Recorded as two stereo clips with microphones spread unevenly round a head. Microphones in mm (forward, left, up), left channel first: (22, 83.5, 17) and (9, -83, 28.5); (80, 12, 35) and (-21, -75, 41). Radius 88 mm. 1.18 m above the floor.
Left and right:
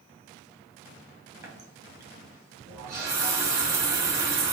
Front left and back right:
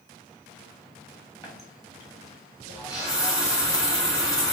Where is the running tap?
25° right, 1.2 m.